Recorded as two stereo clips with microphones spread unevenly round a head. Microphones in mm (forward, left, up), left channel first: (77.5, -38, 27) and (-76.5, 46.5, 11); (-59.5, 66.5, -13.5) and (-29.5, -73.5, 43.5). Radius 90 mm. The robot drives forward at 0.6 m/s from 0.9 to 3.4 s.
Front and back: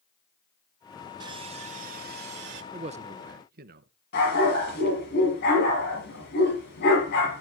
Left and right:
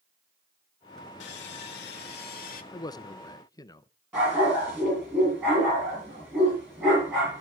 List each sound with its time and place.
1.2 s sawing: 85° left, 1.0 m; by 2.6 s 130° left, 1.3 m
2.7 s a man speaking: 105° left, 0.5 m; by 3.9 s 145° left, 0.7 m
4.1 s a dog barking: straight ahead, 6 m